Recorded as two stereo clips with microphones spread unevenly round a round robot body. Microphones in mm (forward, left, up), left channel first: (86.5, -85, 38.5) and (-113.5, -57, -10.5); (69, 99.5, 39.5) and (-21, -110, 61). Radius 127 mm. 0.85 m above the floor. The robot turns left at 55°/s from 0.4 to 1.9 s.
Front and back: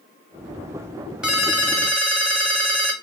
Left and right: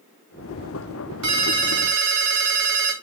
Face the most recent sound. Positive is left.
turn(degrees=-135)